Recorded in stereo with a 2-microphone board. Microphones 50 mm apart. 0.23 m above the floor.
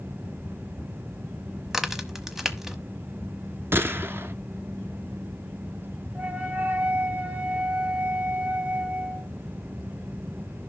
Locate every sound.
1.7 s a crack: 5° right (ahead or behind), 1.1 m
3.7 s a gunshot: 50° right (ahead or behind), 0.8 m
6.2 s a flute: 30° right (ahead or behind), 1.3 m